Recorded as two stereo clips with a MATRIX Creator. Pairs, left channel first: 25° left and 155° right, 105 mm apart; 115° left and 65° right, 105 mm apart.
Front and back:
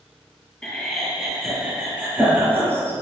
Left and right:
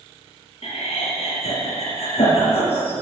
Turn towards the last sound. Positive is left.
turn(degrees=135)